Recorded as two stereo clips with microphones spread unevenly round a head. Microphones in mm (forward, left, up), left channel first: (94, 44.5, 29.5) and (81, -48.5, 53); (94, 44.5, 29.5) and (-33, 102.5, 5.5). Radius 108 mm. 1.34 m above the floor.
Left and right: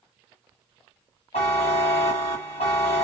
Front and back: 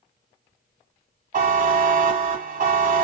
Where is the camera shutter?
No camera shutter in this recording.